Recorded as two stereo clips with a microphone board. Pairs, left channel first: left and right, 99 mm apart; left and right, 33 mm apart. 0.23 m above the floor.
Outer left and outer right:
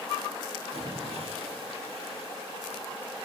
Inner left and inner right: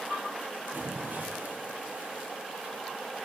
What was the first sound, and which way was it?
A splash, 80° right.